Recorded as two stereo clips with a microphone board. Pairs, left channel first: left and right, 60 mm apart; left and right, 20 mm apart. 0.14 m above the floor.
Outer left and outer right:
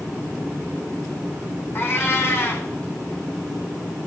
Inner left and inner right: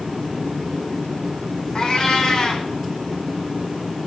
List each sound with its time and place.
1.8 s a cat meowing: 40° left (ahead or behind), 1.7 m